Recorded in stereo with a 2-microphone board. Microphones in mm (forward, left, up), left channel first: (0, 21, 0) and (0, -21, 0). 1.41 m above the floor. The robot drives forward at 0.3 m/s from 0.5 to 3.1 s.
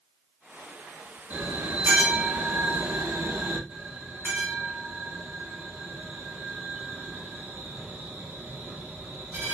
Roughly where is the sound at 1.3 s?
Right.